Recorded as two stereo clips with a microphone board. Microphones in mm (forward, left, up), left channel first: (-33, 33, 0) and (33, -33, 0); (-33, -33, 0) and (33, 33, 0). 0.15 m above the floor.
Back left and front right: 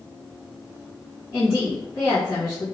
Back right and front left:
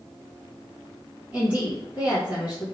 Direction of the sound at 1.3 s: 110° left.